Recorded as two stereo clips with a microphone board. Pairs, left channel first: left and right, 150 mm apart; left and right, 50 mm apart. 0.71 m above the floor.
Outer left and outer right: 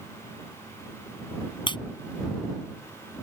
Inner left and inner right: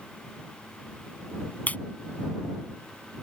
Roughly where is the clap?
Left.